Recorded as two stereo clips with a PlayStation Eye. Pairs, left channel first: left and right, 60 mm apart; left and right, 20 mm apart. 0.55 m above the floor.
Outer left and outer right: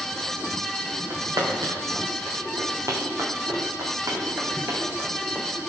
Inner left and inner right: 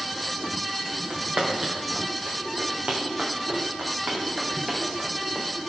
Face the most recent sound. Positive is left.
turn(degrees=-35)  # may be behind; listen again after turning